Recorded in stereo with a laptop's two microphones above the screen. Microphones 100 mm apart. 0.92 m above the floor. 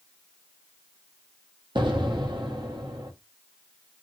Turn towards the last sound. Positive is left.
turn(degrees=-50)  # may be behind; listen again after turning